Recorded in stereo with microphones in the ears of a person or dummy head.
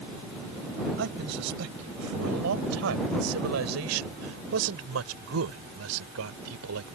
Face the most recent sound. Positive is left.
turn(degrees=-85)